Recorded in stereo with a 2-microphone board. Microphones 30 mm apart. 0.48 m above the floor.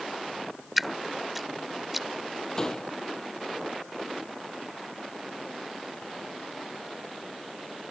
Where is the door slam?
20° left (ahead or behind).